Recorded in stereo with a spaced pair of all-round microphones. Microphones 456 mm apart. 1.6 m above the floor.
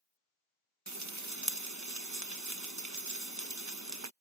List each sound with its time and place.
0.9 s frying: 35° right (ahead or behind)